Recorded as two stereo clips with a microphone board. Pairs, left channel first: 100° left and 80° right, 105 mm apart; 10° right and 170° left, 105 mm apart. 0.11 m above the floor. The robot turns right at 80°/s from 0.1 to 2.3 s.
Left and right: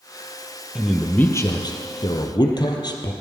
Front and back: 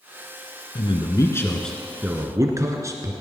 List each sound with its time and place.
0.8 s a man speaking: straight ahead, 1.6 m; by 3.1 s 120° left, 1.6 m